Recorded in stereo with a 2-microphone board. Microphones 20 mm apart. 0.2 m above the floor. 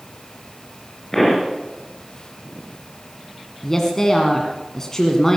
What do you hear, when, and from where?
1.1 s a pop: 5° left (ahead or behind), 4 m
3.6 s a woman speaking: 20° left (ahead or behind), 1.6 m